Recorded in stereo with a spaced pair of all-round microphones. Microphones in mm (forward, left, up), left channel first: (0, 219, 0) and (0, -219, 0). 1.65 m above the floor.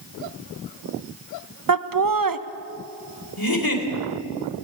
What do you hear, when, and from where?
1.7 s laughter: 50° right (ahead or behind), 0.7 m
3.4 s a giggle: 55° left (ahead or behind), 3 m